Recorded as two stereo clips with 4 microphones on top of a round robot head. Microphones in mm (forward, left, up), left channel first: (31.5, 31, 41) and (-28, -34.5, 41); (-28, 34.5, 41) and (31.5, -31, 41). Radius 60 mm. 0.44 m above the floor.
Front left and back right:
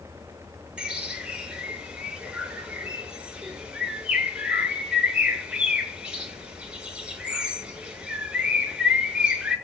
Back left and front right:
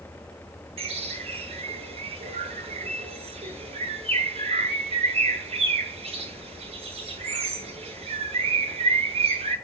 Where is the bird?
55° right, 7 m.